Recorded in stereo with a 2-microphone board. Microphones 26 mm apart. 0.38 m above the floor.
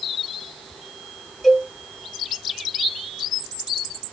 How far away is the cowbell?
About 2.5 m.